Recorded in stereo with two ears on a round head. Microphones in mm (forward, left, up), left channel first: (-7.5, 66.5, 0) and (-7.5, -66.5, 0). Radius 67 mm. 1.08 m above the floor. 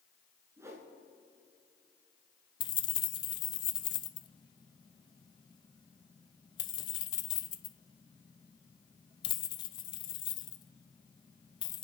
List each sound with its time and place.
0.6 s a whoosh: 20° right (ahead or behind), 2.5 m
2.6 s keys jangling: 30° left (ahead or behind), 0.5 m